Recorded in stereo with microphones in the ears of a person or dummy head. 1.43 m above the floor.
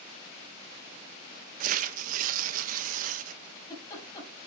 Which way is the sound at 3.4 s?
20° left (ahead or behind).